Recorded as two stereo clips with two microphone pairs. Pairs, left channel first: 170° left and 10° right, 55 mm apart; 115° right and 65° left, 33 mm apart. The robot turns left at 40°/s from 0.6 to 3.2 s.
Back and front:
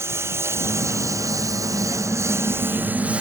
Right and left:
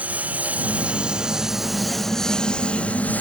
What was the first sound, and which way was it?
A lawn mower, 25° left.